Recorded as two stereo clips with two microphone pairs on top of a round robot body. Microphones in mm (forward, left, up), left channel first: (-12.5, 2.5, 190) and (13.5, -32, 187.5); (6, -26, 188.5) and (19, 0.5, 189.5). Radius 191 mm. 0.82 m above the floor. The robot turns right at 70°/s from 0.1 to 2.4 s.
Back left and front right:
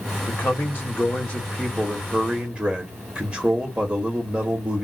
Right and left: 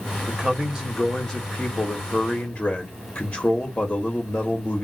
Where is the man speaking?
120° left, 1.4 m; by 4.9 s 90° right, 1.4 m.